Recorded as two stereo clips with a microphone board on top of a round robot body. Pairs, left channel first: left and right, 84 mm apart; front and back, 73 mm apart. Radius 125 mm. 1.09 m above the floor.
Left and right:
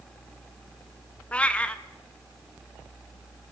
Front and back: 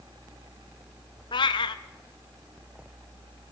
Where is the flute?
No flute in this recording.